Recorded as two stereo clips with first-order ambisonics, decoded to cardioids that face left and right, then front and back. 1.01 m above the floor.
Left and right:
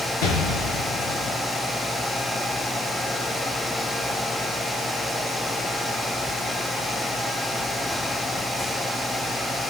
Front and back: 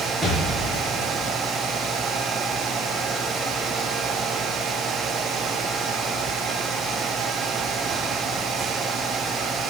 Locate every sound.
0.2 s an explosion: 90° left, 3.5 m